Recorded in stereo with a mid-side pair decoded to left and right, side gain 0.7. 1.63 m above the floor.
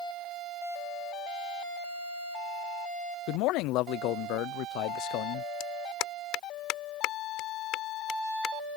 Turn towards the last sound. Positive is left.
turn(degrees=60)